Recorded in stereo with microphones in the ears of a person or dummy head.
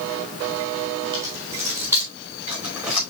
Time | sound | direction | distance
1.1 | keys jangling | 25° right (ahead or behind) | 4 m